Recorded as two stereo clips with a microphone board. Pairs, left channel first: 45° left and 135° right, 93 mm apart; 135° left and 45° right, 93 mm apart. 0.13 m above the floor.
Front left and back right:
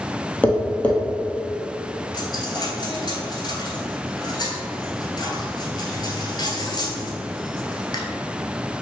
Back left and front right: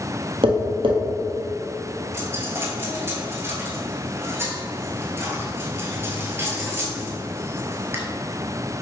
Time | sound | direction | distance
0.4 | tapping | 30° right | 1.1 m
2.1 | a dropped coin | 15° left | 0.9 m